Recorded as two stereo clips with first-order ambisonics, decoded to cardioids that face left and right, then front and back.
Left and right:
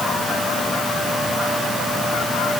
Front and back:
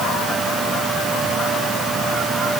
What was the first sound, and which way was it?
Only background noise.